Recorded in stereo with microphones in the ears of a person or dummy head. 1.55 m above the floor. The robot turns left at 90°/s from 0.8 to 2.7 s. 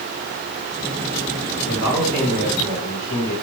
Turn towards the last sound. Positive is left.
turn(degrees=125)